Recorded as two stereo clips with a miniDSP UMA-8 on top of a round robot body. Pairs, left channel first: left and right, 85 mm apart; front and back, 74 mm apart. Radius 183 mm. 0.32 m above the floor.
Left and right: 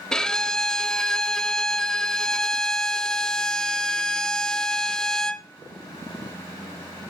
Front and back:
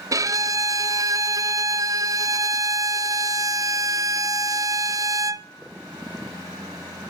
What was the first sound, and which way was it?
A violin, 170° left.